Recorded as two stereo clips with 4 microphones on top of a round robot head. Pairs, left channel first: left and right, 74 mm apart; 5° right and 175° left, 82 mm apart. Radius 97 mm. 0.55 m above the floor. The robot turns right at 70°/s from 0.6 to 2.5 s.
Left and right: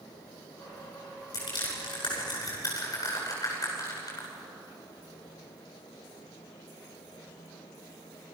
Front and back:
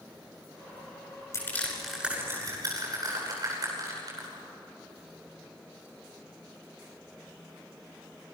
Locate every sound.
1.3 s crushing: 50° left, 10 m; by 4.3 s 130° left, 10 m